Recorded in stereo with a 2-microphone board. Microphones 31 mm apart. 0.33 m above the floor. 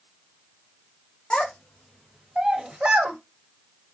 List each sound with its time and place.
1.3 s a child speaking: 30° left (ahead or behind), 0.7 m; by 3.2 s 50° right (ahead or behind), 0.8 m